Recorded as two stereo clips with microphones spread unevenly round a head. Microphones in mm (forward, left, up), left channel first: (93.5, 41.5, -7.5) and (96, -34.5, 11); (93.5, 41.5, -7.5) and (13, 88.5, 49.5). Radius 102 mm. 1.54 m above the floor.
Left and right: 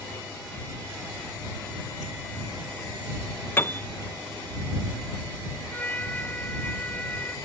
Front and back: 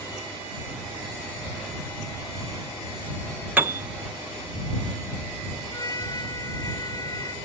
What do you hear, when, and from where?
3.6 s a piano: 170° left
5.7 s a trumpet: 20° left